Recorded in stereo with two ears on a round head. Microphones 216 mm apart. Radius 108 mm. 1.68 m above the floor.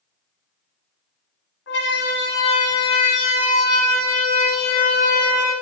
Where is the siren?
50° left (ahead or behind), 9.5 m; by 5.5 s 85° left, 9 m.